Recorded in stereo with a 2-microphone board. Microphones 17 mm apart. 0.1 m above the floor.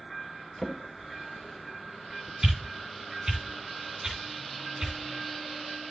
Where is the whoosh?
35° right (ahead or behind), 3 m.